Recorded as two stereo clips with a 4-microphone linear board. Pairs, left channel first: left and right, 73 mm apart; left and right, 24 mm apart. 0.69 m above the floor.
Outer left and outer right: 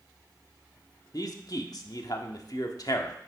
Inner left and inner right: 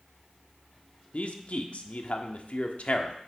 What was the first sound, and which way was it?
A man speaking, 60° left (ahead or behind).